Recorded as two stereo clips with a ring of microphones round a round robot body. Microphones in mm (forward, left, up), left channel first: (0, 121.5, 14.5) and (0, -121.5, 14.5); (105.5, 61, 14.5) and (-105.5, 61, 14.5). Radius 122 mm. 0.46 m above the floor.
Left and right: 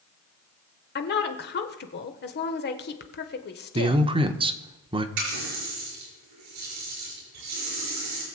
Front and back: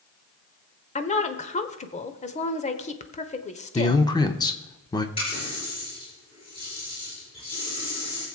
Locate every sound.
0.9 s a woman speaking: 50° left, 1.3 m
3.8 s a man speaking: 50° right, 0.8 m
5.2 s a running tap: 70° right, 6 m